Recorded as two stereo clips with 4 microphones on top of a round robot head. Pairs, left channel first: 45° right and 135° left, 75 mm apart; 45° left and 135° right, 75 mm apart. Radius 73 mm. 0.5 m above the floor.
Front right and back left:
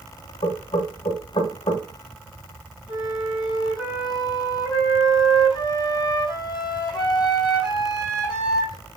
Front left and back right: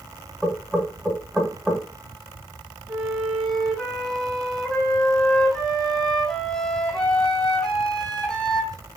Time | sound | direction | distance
0.4 | knocking | 45° right | 1.6 m
2.9 | a flute | 35° right | 3 m